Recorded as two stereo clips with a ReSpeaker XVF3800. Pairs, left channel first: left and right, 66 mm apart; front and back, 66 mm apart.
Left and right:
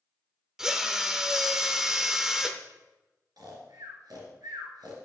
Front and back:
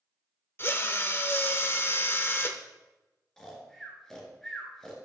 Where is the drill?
15° right, 0.7 m.